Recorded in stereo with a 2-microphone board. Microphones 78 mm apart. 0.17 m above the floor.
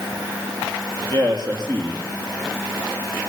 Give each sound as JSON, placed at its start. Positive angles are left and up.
{"t": 1.1, "sound": "a man speaking", "side_deg": -55, "distance_m": 5.5}